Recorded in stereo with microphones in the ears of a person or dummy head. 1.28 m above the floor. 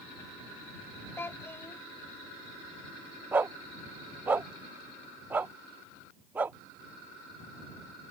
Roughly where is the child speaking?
Centre.